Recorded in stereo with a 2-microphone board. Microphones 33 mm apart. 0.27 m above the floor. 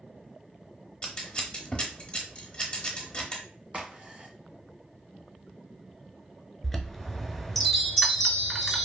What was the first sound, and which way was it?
Scissors, 25° left (ahead or behind).